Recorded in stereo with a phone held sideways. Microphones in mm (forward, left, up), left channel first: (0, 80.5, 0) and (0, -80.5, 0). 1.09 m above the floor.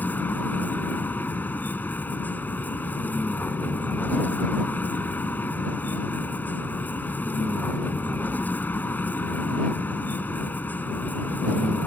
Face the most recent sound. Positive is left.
turn(degrees=10)  # may be behind; listen again after turning